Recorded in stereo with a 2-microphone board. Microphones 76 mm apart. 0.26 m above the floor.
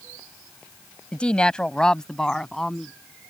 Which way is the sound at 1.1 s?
15° left (ahead or behind).